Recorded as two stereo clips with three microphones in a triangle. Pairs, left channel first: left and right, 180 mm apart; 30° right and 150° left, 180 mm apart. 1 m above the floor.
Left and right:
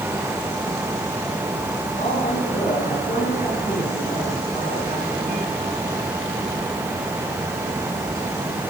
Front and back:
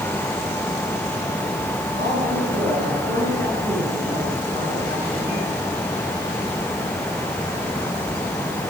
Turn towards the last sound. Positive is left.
turn(degrees=135)